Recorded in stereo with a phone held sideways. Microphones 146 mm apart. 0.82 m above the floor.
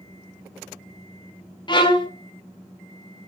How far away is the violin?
About 0.5 m.